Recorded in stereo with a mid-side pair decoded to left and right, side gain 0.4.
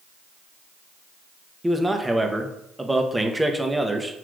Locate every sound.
1.6 s a man speaking: 15° right, 0.8 m